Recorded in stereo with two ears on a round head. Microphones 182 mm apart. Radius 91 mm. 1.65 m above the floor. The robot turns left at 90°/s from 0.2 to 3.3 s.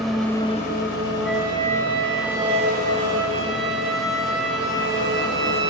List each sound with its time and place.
0.0 s an engine running: straight behind, 4 m; by 5.7 s 100° right, 4 m
1.2 s a flute: 5° left, 4 m; by 5.7 s straight behind, 4 m